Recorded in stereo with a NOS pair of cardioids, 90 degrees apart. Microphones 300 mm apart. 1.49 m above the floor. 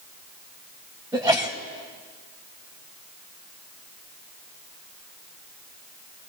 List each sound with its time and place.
1.1 s a sneeze: 15° right, 4 m